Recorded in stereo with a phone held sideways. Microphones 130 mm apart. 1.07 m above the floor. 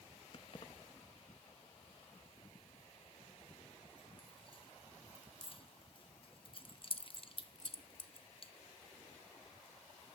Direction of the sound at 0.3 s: 45° left (ahead or behind).